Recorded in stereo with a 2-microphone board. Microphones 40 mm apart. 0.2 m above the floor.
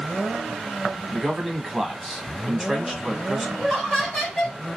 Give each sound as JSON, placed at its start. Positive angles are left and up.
{"t": 1.1, "sound": "a man speaking", "side_deg": -10, "distance_m": 1.0}
{"t": 3.6, "sound": "laughter", "side_deg": 15, "distance_m": 1.3}